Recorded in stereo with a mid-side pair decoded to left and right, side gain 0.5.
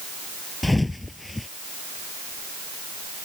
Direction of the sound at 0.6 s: 10° left.